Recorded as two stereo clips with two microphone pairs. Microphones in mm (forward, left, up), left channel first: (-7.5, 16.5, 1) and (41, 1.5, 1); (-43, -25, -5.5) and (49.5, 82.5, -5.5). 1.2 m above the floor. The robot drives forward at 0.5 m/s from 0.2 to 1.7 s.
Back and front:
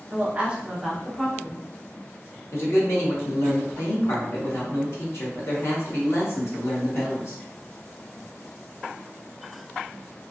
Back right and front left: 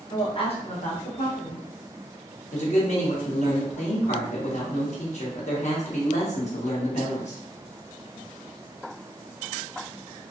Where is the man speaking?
165° right, 1.0 m.